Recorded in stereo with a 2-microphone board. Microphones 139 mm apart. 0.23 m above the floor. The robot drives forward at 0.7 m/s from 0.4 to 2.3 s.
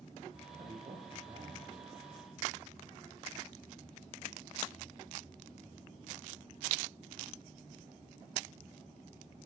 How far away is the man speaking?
About 7 m.